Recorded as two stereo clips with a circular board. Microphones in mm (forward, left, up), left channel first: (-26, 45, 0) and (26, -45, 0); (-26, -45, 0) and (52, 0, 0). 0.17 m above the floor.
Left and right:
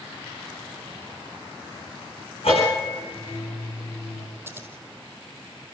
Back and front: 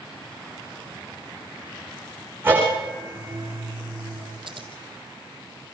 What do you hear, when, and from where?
2.4 s a bell: 95° left, 9.5 m
4.5 s scissors: 10° left, 2 m